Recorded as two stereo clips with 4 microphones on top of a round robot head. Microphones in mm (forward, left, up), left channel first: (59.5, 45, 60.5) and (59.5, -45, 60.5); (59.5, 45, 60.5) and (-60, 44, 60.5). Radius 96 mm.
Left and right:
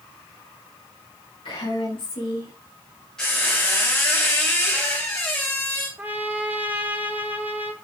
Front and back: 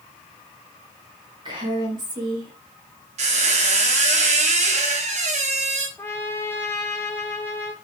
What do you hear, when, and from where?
1.4 s a woman speaking: 130° left, 3 m
3.2 s a squeak: 175° left, 0.9 m
6.0 s a trumpet: 50° right, 0.5 m